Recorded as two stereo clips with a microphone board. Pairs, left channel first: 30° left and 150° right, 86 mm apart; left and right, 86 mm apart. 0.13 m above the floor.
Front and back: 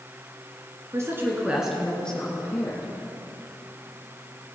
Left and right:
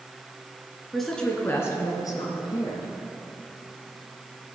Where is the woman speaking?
Straight behind, 1.8 m; by 2.9 s 85° left, 2.5 m.